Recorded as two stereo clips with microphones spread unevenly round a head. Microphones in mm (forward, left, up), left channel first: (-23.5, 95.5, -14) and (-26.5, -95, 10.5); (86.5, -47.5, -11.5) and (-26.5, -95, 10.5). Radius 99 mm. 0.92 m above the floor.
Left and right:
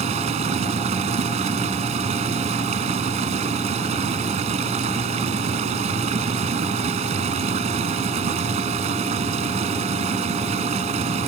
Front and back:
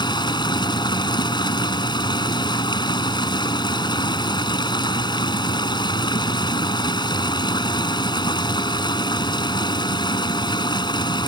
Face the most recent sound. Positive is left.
turn(degrees=-30)